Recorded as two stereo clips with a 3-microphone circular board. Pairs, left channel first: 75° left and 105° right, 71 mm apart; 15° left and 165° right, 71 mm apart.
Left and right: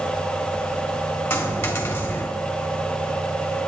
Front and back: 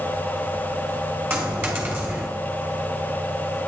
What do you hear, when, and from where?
1.3 s a dropped coin: 135° left, 3 m